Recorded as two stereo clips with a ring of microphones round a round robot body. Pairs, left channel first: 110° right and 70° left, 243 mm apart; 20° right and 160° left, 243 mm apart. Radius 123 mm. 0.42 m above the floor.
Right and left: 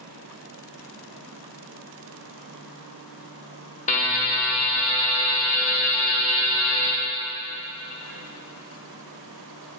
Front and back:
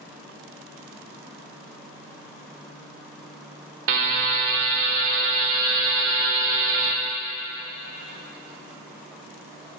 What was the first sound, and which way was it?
A buzzer, 170° right.